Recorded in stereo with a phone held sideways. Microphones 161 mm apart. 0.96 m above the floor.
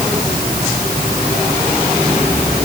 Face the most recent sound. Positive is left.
No sound to turn to.